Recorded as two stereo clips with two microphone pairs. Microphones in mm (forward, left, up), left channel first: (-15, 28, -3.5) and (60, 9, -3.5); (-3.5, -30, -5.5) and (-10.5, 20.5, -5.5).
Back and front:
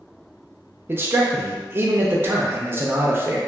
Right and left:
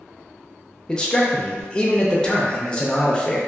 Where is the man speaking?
25° right, 0.5 m.